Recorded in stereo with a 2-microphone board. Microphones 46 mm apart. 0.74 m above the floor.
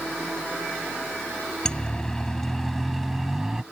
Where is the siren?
15° left (ahead or behind); by 3.6 s 10° right (ahead or behind).